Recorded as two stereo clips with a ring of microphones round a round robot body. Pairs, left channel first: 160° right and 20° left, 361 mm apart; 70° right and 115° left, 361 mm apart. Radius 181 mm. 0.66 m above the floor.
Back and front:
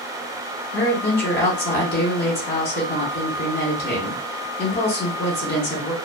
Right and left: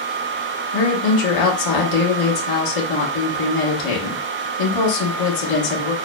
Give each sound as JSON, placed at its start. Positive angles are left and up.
{"t": 0.7, "sound": "a woman speaking", "azimuth_deg": -95, "distance_m": 1.3}